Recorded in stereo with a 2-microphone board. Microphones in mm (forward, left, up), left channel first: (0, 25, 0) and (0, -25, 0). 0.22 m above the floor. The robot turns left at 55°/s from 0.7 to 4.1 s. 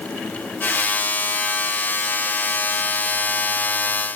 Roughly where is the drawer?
No drawer in this recording.